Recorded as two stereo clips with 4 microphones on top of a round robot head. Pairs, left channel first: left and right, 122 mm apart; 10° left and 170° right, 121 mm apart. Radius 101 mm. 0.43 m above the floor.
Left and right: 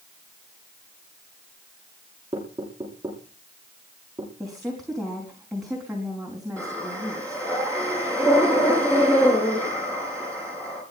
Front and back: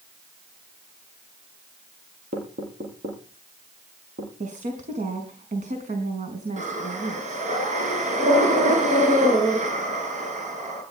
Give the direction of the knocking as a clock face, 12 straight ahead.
5 o'clock.